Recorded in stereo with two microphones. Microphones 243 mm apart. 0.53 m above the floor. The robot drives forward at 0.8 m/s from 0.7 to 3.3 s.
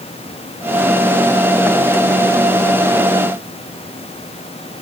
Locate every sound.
Only background noise.